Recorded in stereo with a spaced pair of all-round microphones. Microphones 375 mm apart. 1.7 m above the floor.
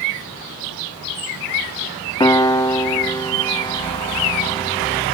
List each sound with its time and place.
2.2 s a piano: 10° left (ahead or behind), 1.6 m